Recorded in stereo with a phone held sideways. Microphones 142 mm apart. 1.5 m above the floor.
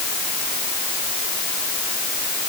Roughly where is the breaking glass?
No breaking glass in this recording.